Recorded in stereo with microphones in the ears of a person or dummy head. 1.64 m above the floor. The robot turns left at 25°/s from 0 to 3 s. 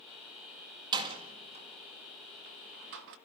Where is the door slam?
20° right (ahead or behind), 1.6 m; by 3.1 s 60° right (ahead or behind), 1.6 m.